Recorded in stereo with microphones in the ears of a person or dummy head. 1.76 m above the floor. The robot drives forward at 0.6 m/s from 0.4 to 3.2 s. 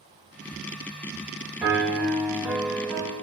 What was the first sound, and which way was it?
A piano, 5° right (ahead or behind).